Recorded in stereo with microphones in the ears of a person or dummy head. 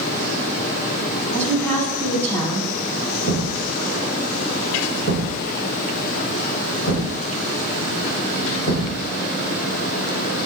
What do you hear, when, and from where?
1.3 s a woman speaking: 10° left (ahead or behind), 4.5 m
3.3 s a thud: 65° left (ahead or behind), 4 m